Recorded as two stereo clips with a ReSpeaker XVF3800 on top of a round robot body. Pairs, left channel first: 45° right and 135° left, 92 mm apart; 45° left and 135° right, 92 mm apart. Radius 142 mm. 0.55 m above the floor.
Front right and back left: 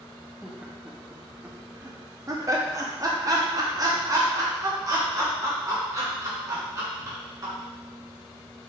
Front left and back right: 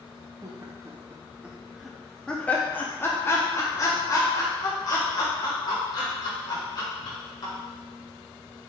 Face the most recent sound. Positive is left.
turn(degrees=85)